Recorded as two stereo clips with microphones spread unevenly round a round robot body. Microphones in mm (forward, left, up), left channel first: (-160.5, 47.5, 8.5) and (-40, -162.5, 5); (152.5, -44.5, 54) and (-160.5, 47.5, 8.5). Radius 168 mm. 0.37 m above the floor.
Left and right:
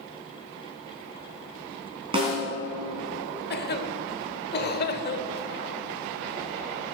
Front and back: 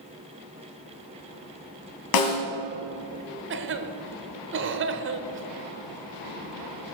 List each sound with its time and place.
2.1 s a snare drum: 15° left, 2 m
3.5 s a cough: 145° left, 1.0 m